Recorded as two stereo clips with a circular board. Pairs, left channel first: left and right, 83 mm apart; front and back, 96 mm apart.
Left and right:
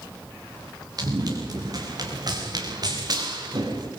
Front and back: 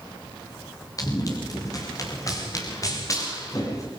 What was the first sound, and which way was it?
Running footsteps, 50° right.